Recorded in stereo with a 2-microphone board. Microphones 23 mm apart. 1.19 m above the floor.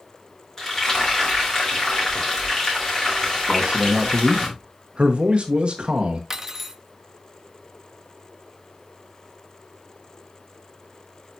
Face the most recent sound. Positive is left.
turn(degrees=-15)  # may be behind; listen again after turning